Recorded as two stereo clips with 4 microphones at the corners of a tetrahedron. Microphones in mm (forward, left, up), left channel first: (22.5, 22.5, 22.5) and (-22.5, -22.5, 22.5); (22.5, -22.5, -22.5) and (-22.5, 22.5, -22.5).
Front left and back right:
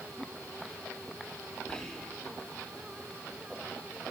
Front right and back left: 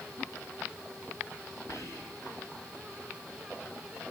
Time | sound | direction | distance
1.7 | whispering | 35° right | 3 m